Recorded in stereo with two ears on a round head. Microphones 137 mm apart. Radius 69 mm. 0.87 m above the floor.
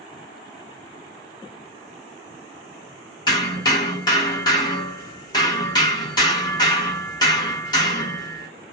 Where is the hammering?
25° left (ahead or behind), 1.3 m.